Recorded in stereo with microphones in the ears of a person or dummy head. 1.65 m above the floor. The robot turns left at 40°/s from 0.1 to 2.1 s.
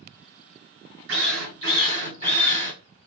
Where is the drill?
100° right, 1.1 m; by 2.7 s 140° right, 1.1 m.